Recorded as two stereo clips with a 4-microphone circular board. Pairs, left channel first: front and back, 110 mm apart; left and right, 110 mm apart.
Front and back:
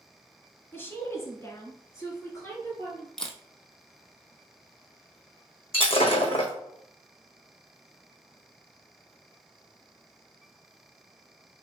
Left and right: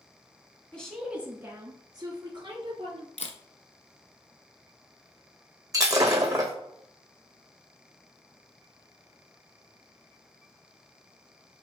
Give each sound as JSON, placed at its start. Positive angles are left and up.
{"t": 0.7, "sound": "a woman speaking", "azimuth_deg": 30, "distance_m": 1.1}
{"t": 3.2, "sound": "a camera shutter", "azimuth_deg": 85, "distance_m": 0.8}
{"t": 5.7, "sound": "breaking glass", "azimuth_deg": -30, "distance_m": 1.3}